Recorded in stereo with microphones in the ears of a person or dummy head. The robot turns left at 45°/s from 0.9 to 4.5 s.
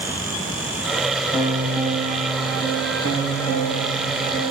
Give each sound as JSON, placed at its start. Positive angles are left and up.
{"t": 1.3, "sound": "a piano", "azimuth_deg": -5, "distance_m": 2.5}